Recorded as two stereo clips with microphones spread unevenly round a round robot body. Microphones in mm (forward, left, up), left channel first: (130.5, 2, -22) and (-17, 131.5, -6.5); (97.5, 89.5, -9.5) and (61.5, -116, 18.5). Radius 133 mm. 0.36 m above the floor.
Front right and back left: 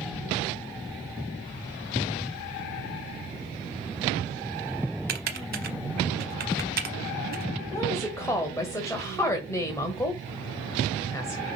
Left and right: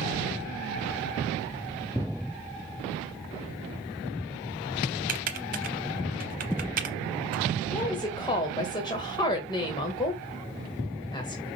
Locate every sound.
5.1 s typing on a keyboard: 160° right, 0.5 m
7.7 s a woman speaking: 25° left, 1.3 m